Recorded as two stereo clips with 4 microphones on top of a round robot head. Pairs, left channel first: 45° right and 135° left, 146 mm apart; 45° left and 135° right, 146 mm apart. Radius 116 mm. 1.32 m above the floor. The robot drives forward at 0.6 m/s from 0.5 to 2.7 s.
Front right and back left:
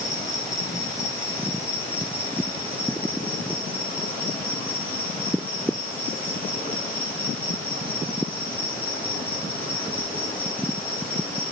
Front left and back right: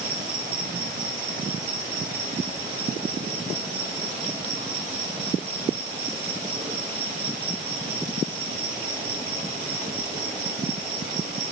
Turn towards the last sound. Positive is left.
turn(degrees=-125)